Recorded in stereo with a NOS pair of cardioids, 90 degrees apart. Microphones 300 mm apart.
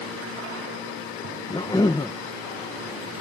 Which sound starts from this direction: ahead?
A cough, at 1.5 s.